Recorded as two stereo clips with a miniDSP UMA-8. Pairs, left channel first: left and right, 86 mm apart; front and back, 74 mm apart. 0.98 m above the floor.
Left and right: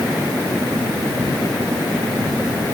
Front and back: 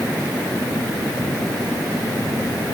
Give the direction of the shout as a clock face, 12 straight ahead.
No shout in this recording.